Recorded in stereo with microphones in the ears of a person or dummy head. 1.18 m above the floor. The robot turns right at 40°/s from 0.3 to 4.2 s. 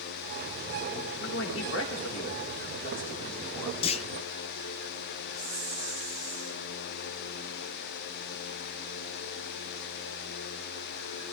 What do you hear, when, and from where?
1.2 s a man speaking: 60° left, 3.5 m; by 3.7 s 165° left, 3.5 m
3.8 s a clunk: 35° left (ahead or behind), 0.7 m
5.3 s a hiss: 50° left (ahead or behind), 5.5 m